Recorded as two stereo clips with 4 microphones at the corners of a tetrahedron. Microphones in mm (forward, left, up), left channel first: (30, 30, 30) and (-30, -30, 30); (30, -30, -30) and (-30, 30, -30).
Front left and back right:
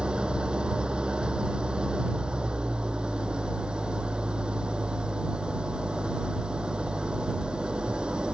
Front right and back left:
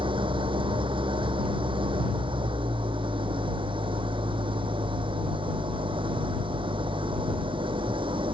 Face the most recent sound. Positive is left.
turn(degrees=145)